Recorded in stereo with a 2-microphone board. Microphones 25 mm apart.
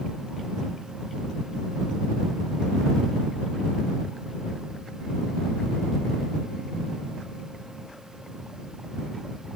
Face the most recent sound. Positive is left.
No sound to turn to.